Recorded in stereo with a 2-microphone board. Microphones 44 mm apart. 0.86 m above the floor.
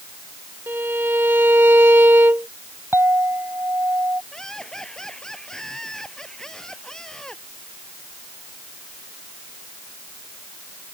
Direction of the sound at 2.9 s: 70° right (ahead or behind).